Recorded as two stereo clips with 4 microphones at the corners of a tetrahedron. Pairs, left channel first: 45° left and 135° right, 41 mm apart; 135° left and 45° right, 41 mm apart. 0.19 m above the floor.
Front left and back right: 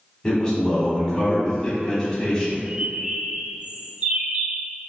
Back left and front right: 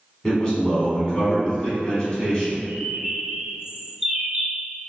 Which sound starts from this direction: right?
A bird, at 2.7 s.